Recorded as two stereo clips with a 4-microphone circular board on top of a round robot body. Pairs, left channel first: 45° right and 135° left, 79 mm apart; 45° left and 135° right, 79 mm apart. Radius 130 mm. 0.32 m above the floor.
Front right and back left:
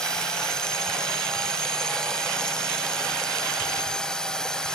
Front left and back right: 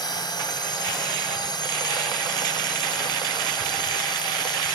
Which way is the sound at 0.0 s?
35° left.